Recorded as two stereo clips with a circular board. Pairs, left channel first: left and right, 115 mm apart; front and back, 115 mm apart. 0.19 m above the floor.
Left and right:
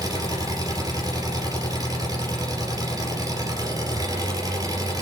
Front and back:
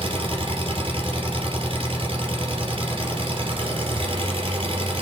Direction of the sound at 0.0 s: 145° right.